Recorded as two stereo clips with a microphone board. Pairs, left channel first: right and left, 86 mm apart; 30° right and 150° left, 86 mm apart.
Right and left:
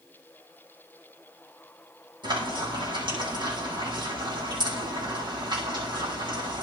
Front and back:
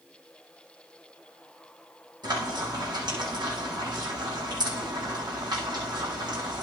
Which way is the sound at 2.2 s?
115° left.